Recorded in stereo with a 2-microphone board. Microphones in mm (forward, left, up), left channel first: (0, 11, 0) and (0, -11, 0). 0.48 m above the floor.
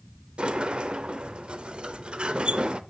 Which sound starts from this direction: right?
A sliding door, at 0.4 s.